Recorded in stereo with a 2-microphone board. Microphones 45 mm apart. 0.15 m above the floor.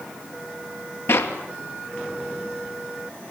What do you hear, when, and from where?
1.1 s a clap: 65° left (ahead or behind), 2.5 m